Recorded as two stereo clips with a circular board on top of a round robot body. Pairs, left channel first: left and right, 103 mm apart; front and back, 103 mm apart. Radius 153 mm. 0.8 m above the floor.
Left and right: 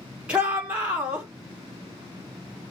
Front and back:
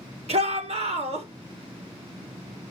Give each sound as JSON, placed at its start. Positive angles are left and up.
{"t": 0.3, "sound": "a shout", "azimuth_deg": -170, "distance_m": 3.0}